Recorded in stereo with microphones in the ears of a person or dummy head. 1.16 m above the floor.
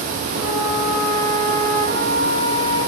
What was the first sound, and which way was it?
A flute, 75° right (ahead or behind).